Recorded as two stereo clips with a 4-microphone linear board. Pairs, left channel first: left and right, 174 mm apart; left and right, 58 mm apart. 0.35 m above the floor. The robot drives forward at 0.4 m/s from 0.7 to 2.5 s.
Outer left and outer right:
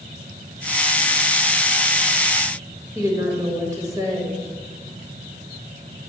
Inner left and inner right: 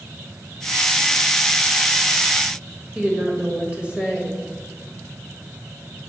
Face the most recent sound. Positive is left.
turn(degrees=-20)  # may be behind; listen again after turning